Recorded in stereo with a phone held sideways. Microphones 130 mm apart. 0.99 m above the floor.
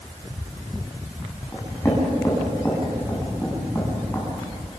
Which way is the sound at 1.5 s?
25° left (ahead or behind).